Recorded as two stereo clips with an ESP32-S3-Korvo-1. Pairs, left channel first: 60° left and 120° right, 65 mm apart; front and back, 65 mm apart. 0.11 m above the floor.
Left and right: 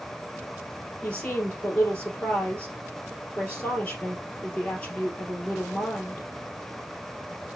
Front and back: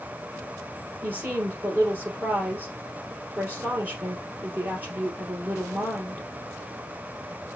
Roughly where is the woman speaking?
Behind left.